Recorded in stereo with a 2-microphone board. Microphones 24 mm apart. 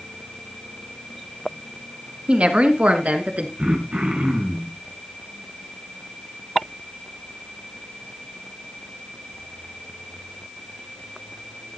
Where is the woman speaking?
55° right (ahead or behind), 2 m; by 3.5 s 70° right (ahead or behind), 3 m.